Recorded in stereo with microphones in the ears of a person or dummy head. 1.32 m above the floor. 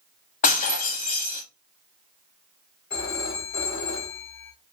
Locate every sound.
0.4 s breaking glass: 40° left (ahead or behind), 1.1 m
2.9 s a phone ringing: 55° left (ahead or behind), 3 m